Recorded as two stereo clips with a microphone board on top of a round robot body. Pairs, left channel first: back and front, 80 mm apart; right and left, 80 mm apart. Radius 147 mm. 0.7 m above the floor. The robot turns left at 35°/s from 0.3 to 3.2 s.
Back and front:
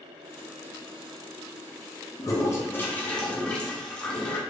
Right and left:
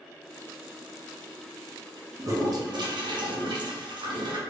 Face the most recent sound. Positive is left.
turn(degrees=100)